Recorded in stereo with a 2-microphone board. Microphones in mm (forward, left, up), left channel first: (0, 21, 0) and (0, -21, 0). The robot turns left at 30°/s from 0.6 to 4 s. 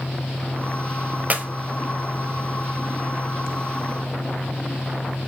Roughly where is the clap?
Right.